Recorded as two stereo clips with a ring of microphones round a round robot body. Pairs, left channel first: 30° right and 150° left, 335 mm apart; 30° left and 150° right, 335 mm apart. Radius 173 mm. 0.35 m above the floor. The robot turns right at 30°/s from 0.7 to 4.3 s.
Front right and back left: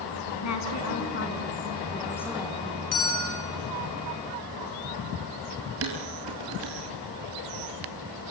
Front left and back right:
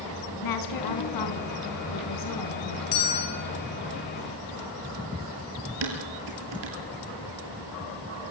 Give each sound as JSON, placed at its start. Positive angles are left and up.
{"t": 0.4, "sound": "a woman speaking", "azimuth_deg": 10, "distance_m": 4.5}
{"t": 2.9, "sound": "a bell", "azimuth_deg": 15, "distance_m": 5.0}
{"t": 5.8, "sound": "dishes clattering", "azimuth_deg": -160, "distance_m": 6.5}